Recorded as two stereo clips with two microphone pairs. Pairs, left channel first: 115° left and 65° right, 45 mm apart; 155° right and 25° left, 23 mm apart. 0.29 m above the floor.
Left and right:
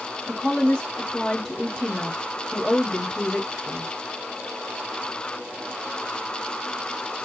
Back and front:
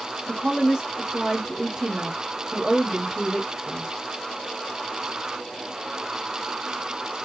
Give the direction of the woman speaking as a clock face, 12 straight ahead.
10 o'clock.